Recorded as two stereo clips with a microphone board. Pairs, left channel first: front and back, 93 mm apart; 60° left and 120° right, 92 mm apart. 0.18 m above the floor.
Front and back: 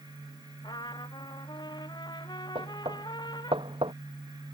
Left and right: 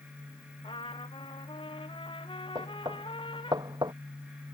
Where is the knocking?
160° right.